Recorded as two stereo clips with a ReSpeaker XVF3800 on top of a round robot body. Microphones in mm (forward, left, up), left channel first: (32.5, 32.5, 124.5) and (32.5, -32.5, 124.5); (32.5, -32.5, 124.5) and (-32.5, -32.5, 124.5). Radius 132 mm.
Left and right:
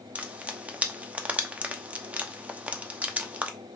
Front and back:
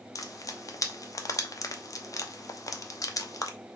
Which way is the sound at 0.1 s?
25° right.